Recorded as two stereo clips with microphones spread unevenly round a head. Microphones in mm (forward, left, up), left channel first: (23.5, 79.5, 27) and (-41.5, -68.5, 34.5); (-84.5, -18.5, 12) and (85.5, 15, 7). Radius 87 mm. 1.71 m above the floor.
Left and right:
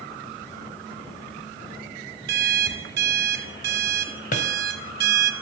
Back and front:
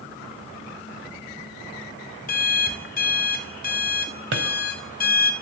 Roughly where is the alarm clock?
Behind right.